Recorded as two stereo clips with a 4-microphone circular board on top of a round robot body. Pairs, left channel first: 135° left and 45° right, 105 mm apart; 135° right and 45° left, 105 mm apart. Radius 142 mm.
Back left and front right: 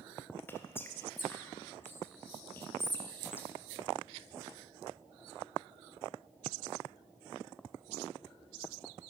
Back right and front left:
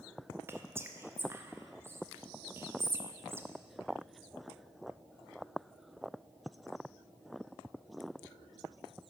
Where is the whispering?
90° left, 0.6 m.